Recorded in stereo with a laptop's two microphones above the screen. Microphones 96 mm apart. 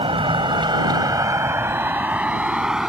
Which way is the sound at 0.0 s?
75° right (ahead or behind).